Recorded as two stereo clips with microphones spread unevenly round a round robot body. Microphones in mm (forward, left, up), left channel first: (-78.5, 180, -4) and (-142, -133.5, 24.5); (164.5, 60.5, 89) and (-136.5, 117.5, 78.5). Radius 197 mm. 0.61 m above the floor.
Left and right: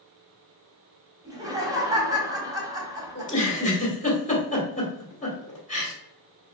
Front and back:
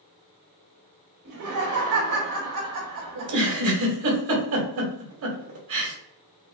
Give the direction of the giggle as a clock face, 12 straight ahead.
7 o'clock.